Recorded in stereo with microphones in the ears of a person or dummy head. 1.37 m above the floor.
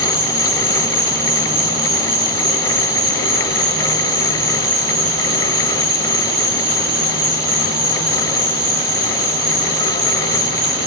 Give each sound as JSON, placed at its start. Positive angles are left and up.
{"t": 0.0, "sound": "an insect", "side_deg": -40, "distance_m": 4.0}